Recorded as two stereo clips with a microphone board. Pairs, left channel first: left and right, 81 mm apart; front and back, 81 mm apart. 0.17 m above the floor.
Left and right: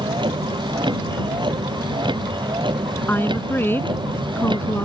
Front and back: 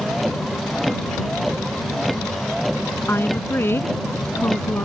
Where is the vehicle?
90° right.